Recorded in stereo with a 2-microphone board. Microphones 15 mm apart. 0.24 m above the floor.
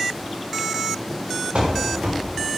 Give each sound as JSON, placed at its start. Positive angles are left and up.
{"t": 1.6, "sound": "running footsteps", "side_deg": -85, "distance_m": 3.5}